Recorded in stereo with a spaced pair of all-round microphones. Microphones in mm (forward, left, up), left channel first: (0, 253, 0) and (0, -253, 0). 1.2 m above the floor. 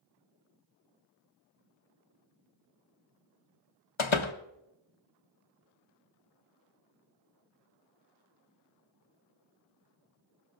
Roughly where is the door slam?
Left.